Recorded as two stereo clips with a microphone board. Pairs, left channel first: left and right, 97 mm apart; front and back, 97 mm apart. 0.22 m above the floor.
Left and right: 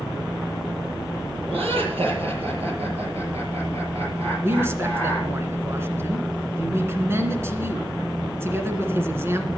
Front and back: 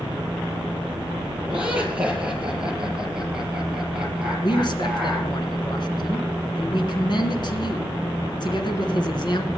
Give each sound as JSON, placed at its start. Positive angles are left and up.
{"t": 1.5, "sound": "laughter", "azimuth_deg": -105, "distance_m": 7.0}
{"t": 4.4, "sound": "a man speaking", "azimuth_deg": -30, "distance_m": 2.5}